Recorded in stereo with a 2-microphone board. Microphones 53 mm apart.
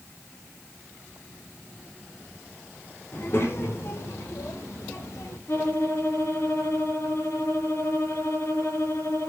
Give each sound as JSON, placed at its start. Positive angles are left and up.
{"t": 3.1, "sound": "a child speaking", "side_deg": 50, "distance_m": 2.0}
{"t": 5.5, "sound": "a violin", "side_deg": 65, "distance_m": 6.0}